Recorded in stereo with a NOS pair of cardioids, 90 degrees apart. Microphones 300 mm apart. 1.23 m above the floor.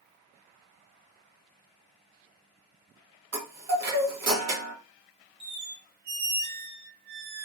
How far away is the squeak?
About 0.6 m.